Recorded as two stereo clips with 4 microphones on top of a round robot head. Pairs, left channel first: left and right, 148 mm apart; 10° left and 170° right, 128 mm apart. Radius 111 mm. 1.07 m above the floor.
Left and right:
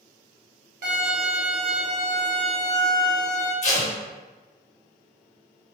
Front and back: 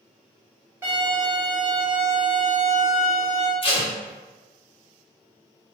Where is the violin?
90° right, 1.2 m.